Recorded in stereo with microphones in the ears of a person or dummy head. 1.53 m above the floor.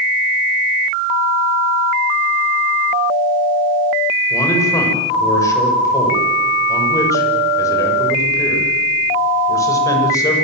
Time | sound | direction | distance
4.3 | a man speaking | 15° left (ahead or behind) | 6.5 m